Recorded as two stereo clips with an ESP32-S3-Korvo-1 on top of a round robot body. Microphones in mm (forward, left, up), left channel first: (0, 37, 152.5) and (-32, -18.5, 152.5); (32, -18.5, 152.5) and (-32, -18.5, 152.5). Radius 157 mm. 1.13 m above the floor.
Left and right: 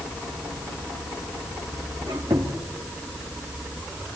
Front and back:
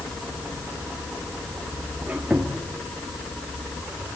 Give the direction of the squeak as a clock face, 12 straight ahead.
4 o'clock.